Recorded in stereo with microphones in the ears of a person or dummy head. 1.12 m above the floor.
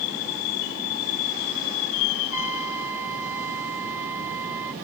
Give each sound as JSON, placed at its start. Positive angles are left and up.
{"t": 2.3, "sound": "a trumpet", "side_deg": -10}